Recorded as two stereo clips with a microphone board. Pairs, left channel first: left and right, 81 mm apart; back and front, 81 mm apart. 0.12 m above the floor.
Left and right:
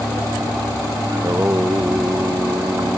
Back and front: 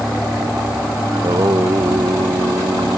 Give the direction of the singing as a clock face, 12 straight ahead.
1 o'clock.